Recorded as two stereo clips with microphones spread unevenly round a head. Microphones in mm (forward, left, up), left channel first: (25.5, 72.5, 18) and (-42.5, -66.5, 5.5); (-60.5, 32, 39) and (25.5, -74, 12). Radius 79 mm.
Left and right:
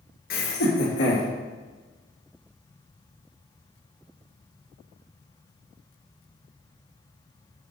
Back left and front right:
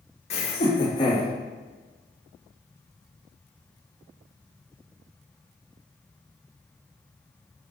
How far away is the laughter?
About 1.6 m.